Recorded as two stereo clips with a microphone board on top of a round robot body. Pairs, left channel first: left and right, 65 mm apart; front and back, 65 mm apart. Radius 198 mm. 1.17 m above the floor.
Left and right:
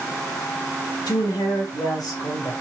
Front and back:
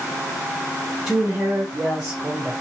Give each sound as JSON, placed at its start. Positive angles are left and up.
{"t": 1.1, "sound": "a woman speaking", "azimuth_deg": 100, "distance_m": 0.8}